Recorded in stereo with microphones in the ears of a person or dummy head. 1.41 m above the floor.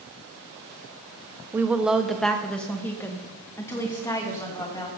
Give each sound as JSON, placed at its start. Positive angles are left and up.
{"t": 1.5, "sound": "a woman speaking", "side_deg": -5, "distance_m": 0.9}